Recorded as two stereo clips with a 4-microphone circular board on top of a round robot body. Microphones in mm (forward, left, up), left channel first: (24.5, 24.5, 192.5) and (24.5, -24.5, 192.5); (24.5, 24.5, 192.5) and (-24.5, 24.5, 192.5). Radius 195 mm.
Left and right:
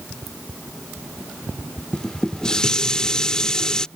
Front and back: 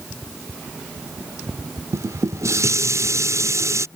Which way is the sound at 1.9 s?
165° left.